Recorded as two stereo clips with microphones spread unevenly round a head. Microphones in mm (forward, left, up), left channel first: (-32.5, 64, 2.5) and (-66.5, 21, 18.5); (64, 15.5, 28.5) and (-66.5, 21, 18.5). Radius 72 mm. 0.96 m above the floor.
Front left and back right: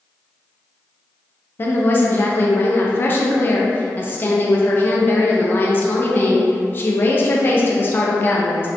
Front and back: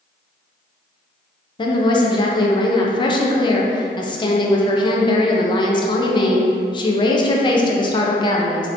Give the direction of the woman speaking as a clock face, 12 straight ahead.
10 o'clock.